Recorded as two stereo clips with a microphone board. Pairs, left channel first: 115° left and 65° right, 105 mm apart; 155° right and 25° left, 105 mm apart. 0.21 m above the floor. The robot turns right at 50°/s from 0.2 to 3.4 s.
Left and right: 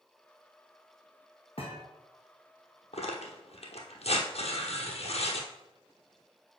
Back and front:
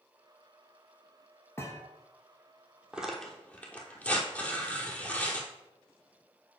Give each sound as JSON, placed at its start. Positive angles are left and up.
{"t": 1.6, "sound": "a thud", "azimuth_deg": 135, "distance_m": 1.3}
{"t": 2.9, "sound": "tearing paper", "azimuth_deg": 105, "distance_m": 1.1}